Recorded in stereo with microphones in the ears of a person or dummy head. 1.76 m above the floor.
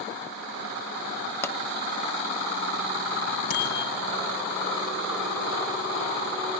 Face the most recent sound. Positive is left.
turn(degrees=50)  # may be behind; listen again after turning